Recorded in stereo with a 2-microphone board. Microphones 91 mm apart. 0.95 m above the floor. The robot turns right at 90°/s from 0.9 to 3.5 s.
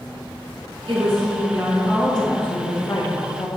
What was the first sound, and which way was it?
A woman speaking, 100° right.